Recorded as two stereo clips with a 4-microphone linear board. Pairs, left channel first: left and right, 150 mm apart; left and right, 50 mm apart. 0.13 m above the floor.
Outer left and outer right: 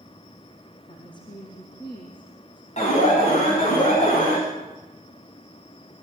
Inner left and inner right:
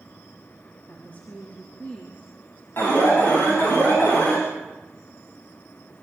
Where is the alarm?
50° left (ahead or behind), 9 m.